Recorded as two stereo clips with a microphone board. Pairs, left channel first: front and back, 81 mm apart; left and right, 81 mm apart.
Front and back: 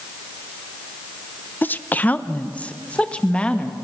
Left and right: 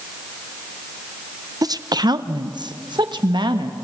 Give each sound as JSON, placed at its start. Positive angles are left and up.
{"t": 1.6, "sound": "a woman speaking", "azimuth_deg": -65, "distance_m": 0.8}